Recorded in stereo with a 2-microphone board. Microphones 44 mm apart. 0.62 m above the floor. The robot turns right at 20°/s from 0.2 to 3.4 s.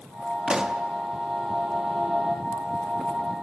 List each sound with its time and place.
0.5 s a pop: 15° right (ahead or behind), 0.7 m; by 0.8 s 20° right (ahead or behind), 0.7 m